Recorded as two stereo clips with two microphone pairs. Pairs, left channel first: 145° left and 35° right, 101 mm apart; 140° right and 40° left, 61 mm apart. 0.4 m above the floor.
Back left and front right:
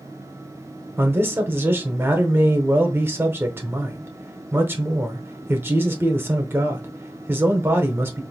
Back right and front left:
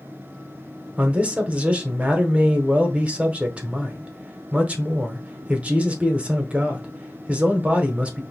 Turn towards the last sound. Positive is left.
turn(degrees=0)